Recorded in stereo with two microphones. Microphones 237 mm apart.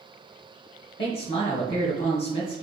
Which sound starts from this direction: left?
A man speaking, at 1.0 s.